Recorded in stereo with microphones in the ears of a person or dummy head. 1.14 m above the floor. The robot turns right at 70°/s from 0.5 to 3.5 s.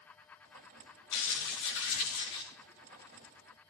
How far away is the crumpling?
About 7 m.